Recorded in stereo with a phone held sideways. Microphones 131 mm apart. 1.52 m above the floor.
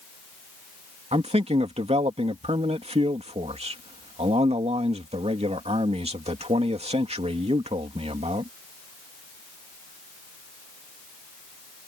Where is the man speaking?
50° right (ahead or behind).